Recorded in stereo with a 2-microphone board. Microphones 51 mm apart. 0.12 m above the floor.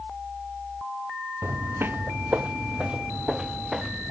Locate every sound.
1.4 s footsteps: 55° right (ahead or behind); by 4.1 s 5° right (ahead or behind)